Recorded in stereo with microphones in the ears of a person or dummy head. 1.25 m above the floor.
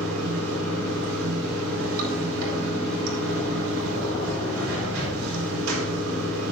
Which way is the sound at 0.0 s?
80° right.